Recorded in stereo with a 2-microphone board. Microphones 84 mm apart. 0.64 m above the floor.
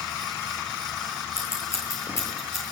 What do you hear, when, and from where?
1.4 s scissors: 30° left (ahead or behind), 9 m